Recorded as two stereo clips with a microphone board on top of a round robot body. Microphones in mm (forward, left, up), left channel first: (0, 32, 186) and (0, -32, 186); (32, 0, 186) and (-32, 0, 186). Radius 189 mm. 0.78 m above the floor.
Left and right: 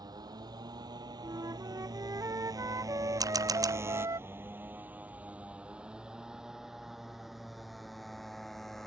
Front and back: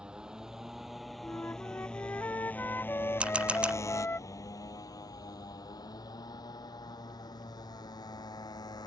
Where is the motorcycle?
105° right; by 8.9 s 5° left.